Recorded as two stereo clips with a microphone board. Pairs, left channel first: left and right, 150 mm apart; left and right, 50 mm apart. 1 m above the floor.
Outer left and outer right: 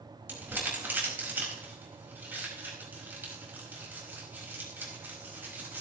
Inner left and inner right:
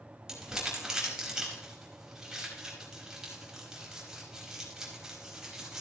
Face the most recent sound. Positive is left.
turn(degrees=-15)  # may be behind; listen again after turning